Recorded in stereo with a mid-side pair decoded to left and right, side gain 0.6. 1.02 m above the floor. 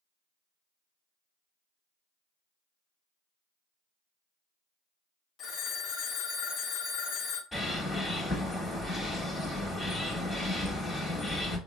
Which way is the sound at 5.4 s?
45° left.